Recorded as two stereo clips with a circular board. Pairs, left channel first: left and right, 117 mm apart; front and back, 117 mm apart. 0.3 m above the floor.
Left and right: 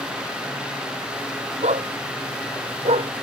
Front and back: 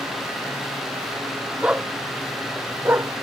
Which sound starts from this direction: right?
A dog barking, at 1.6 s.